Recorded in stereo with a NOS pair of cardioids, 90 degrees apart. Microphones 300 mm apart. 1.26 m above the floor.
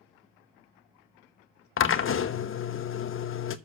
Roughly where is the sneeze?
No sneeze in this recording.